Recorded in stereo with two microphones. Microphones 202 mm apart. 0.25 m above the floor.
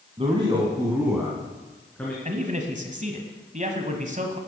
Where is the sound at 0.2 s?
30° right (ahead or behind), 1.6 m; by 2.1 s 10° left (ahead or behind), 2.5 m.